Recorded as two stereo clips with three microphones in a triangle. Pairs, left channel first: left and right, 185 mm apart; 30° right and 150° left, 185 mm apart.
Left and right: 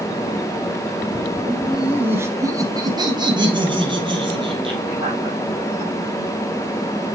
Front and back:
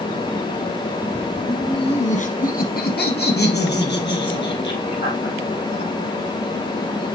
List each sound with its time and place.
1.5 s laughter: 10° left, 1.1 m; by 5.9 s 30° right, 5 m